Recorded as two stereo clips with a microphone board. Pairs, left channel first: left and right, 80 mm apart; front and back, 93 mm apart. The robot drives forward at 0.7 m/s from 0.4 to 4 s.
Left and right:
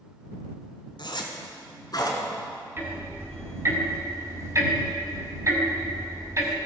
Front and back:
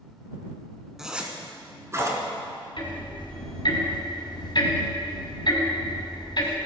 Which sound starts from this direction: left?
A zipper, at 1.0 s.